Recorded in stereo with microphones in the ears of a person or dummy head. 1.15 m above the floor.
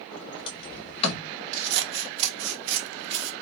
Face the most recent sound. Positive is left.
turn(degrees=-65)  # may be behind; listen again after turning